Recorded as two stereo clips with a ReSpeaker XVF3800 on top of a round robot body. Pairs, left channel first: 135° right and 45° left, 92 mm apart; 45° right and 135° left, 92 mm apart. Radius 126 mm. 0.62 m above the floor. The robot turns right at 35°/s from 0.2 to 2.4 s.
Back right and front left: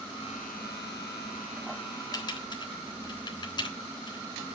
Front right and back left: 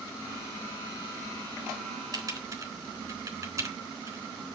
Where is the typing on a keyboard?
Straight behind, 3.5 m; by 4.2 s 170° right, 3.5 m.